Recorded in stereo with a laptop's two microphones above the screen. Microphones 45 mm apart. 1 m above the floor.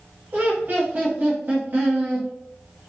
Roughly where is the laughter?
Right.